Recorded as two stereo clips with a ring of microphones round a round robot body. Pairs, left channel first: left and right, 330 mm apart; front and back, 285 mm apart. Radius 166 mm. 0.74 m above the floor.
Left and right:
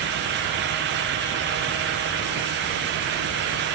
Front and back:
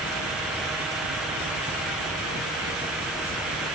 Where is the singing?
No singing in this recording.